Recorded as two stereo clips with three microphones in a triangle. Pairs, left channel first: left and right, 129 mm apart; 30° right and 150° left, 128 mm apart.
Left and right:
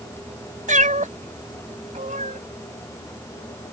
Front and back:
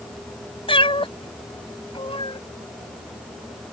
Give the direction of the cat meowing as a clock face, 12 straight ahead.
3 o'clock.